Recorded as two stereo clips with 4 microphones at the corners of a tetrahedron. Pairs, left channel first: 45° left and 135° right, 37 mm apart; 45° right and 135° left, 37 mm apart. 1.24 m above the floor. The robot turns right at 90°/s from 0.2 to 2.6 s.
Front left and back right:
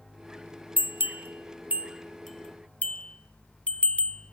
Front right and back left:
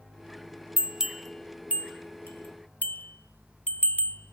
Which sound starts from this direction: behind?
A bell, at 0.8 s.